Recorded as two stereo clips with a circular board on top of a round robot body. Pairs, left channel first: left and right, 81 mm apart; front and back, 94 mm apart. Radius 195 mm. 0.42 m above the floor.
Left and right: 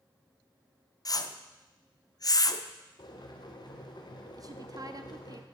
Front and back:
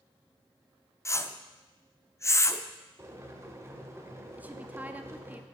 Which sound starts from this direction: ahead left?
A whoosh, at 1.1 s.